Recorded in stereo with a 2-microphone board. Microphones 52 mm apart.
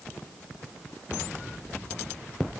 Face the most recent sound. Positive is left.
No sound to turn to.